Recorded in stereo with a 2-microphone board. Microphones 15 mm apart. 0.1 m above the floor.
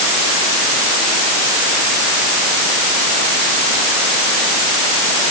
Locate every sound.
Only background noise.